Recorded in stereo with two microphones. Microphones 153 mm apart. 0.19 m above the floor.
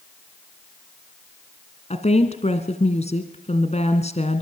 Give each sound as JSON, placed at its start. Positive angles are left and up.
{"t": 1.9, "sound": "a woman speaking", "side_deg": 50, "distance_m": 2.0}